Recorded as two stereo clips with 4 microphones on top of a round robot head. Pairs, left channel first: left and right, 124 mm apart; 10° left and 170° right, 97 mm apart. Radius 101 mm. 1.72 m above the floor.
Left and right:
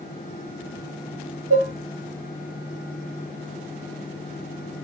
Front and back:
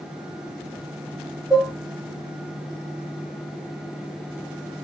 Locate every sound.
1.5 s dishes clattering: 90° right, 2.5 m